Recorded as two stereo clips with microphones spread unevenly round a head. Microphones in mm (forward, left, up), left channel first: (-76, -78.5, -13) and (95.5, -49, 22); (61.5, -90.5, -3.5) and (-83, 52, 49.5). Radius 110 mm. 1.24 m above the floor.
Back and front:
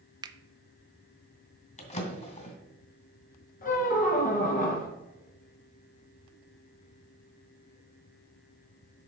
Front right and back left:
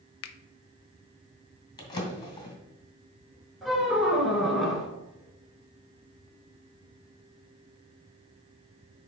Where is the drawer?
120° right, 2 m.